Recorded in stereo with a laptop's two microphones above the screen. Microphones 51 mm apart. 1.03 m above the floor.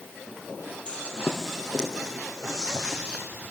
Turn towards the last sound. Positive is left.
turn(degrees=-20)  # may be behind; listen again after turning